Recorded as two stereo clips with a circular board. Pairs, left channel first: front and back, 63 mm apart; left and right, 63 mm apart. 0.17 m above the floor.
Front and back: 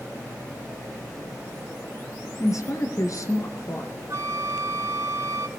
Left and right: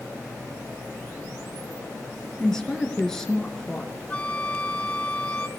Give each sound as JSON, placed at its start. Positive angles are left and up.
{"t": 2.4, "sound": "a woman speaking", "azimuth_deg": 10, "distance_m": 2.5}
{"t": 4.1, "sound": "a flute", "azimuth_deg": 155, "distance_m": 0.8}